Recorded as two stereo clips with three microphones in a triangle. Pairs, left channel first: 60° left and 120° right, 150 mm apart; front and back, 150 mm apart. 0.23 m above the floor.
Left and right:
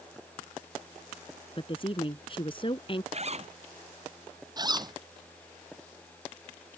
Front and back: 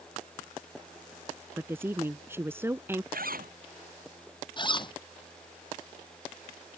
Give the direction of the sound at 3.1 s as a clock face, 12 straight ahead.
5 o'clock.